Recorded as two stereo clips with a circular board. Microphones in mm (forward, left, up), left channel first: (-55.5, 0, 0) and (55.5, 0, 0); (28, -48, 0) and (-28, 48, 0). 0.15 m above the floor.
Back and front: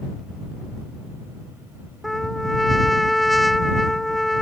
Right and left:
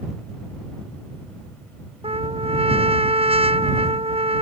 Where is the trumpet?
90° left.